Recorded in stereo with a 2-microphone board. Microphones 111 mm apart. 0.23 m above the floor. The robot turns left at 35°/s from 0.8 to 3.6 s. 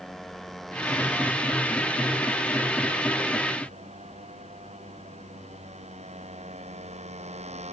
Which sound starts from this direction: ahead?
A motorcycle, at 0.0 s.